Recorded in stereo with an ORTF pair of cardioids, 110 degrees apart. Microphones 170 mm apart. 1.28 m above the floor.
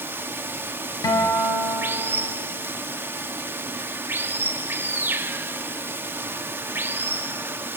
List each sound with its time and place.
0.0 s running water: 15° right, 1.8 m
1.0 s a guitar: 20° left, 6 m